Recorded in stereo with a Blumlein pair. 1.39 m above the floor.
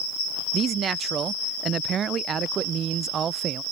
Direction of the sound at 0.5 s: 25° right.